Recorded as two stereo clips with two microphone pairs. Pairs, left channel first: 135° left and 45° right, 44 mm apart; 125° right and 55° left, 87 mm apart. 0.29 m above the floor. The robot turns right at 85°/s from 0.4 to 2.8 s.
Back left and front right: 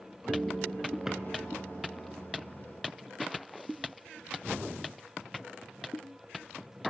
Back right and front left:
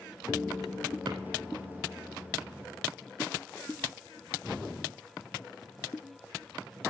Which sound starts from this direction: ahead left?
A drawer, at 1.1 s.